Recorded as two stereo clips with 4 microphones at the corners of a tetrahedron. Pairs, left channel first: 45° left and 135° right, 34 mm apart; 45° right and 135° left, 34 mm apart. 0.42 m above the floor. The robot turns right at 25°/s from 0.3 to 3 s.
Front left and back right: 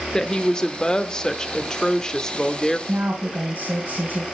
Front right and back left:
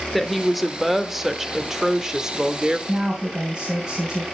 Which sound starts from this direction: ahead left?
A woman speaking, at 0.1 s.